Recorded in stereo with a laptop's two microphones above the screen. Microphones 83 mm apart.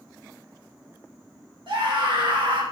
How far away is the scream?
About 3 m.